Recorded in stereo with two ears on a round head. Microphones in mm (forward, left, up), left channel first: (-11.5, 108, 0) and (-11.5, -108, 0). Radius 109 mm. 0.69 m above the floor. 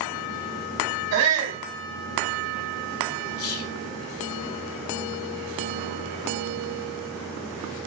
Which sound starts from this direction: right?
A shout, at 1.1 s.